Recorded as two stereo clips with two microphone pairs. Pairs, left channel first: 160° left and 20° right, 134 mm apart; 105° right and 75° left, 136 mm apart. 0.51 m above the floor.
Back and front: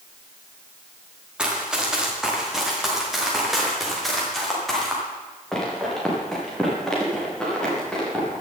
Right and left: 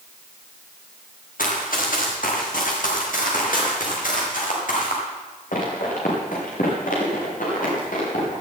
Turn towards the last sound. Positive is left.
turn(degrees=-115)